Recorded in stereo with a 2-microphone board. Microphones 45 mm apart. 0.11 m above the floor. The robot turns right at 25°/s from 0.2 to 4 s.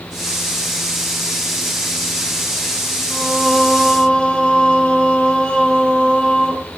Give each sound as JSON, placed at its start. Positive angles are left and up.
{"t": 3.1, "sound": "singing", "side_deg": 20, "distance_m": 0.7}